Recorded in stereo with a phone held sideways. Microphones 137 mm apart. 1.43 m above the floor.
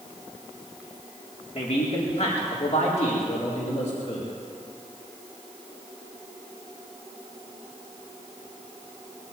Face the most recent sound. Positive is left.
turn(degrees=65)  # may be behind; listen again after turning